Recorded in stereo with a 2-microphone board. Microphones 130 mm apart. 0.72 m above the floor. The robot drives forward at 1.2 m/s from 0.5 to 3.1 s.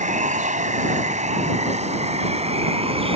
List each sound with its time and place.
0.0 s running water: 80° right; by 3.2 s 50° right (ahead or behind)